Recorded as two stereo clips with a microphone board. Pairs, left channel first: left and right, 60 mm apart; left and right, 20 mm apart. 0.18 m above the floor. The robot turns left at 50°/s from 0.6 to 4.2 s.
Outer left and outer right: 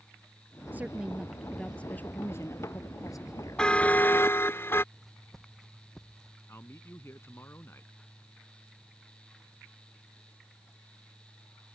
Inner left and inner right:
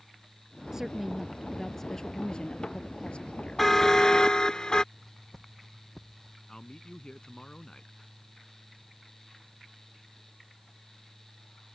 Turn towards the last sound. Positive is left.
turn(degrees=45)  # may be behind; listen again after turning